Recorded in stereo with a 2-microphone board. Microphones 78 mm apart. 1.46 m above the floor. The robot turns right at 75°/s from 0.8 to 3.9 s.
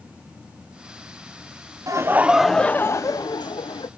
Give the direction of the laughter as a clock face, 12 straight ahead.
1 o'clock.